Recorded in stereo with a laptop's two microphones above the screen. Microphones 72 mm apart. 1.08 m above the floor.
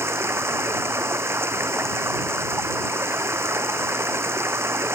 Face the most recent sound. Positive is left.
turn(degrees=-35)  # may be behind; listen again after turning